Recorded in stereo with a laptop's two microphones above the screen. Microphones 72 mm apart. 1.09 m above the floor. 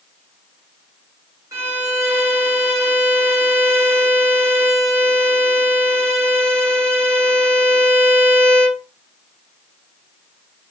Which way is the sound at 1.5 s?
50° right (ahead or behind).